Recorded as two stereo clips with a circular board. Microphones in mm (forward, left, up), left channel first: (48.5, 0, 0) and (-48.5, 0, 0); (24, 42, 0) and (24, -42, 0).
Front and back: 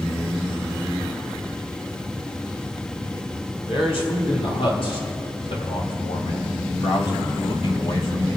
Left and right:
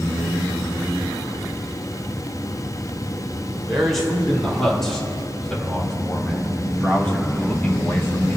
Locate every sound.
3.7 s a man speaking: 5° left, 4.5 m; by 8.4 s 30° left, 1.8 m